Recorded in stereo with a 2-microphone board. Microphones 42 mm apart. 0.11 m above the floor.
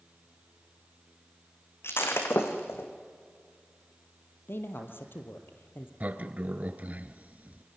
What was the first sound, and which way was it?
Breaking glass, 75° left (ahead or behind).